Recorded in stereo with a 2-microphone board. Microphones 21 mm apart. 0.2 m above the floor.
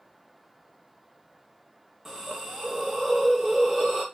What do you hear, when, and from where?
2.0 s a hiss: 20° right (ahead or behind), 3 m